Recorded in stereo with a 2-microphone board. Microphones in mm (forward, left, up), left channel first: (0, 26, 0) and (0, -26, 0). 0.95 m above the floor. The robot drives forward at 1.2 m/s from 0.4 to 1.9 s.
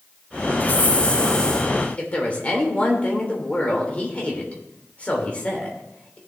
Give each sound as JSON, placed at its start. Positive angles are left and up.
{"t": 0.6, "sound": "a hiss", "side_deg": 40, "distance_m": 0.9}
{"t": 2.0, "sound": "a woman speaking", "side_deg": 30, "distance_m": 3.0}